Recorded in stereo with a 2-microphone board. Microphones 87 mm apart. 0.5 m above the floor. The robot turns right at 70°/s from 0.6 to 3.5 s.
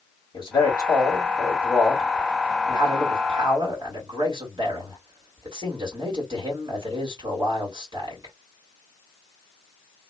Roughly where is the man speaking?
Left.